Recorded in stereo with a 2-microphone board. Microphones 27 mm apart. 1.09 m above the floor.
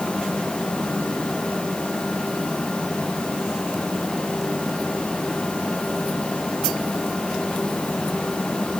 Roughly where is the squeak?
I don't hear a squeak.